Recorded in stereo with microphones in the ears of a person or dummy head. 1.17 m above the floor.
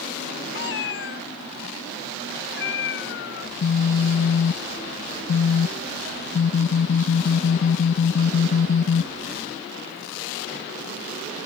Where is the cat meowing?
60° left (ahead or behind).